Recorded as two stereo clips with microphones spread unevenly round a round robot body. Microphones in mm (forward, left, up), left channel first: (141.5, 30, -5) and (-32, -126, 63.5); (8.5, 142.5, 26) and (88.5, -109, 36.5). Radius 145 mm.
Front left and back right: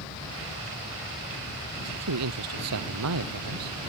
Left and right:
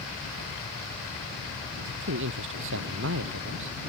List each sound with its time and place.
1.9 s a man speaking: 125° right